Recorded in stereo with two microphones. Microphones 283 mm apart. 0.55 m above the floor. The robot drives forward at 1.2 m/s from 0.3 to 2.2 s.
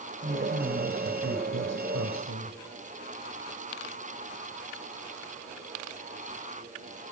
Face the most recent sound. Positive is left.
turn(degrees=-75)  # may be behind; listen again after turning